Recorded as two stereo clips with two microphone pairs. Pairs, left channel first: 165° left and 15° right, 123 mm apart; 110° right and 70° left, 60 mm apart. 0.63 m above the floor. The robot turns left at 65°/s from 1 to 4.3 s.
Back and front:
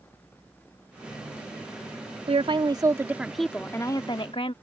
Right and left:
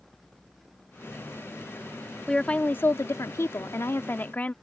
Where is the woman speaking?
30° right; by 4.5 s 165° right.